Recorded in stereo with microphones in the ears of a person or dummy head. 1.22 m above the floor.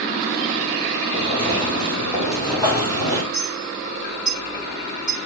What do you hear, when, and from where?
1.1 s footsteps: 30° left (ahead or behind), 3.5 m; by 3.2 s 10° left (ahead or behind), 4 m
3.3 s a clink: 35° left (ahead or behind), 4.5 m